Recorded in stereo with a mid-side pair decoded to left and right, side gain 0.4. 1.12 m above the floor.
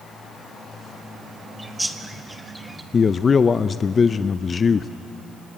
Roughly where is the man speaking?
Ahead left.